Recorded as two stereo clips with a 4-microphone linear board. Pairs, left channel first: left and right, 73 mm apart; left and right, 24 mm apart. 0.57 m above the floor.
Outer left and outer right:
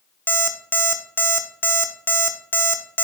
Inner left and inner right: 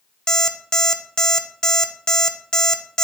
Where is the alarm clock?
30° left (ahead or behind), 0.6 m.